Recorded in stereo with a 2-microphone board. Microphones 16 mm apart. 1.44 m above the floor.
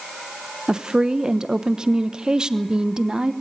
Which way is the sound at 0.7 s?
50° right (ahead or behind).